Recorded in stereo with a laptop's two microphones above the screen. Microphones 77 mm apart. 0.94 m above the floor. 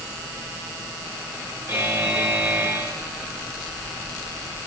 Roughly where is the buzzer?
Right.